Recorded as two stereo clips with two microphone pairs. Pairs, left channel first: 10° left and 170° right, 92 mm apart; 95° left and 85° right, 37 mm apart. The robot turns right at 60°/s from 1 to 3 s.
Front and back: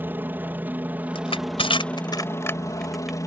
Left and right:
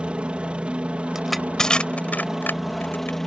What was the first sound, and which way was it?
A helicopter, 115° right.